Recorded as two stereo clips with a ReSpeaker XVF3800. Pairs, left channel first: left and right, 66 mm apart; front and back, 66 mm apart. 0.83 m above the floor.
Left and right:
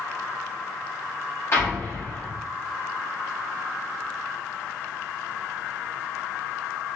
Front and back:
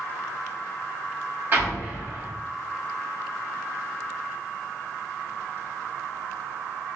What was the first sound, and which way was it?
An explosion, 130° left.